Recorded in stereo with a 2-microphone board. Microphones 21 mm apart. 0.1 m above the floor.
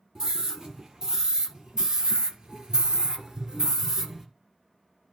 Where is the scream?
30° right (ahead or behind), 4 m; by 4.3 s 15° right (ahead or behind), 1.9 m.